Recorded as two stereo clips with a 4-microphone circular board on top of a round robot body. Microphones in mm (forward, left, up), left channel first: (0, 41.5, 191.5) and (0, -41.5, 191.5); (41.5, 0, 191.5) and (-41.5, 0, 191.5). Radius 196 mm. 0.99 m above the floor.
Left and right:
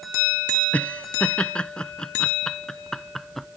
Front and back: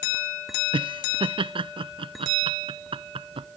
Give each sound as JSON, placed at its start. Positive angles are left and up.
{"t": 0.7, "sound": "laughter", "azimuth_deg": 165}